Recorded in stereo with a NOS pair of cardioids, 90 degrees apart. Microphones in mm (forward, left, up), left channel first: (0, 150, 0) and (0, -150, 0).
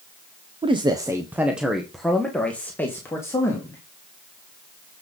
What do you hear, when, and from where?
0.6 s a man speaking: 20° right, 0.9 m; by 3.8 s 10° left, 2.5 m